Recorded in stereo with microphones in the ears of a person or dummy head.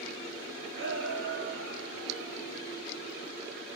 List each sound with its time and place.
0.7 s a shout: 50° right (ahead or behind), 4.5 m; by 2.6 s 55° right (ahead or behind), 5 m